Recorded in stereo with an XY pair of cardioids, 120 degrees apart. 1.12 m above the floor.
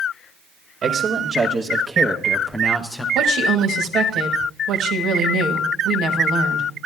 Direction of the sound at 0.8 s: 45° right.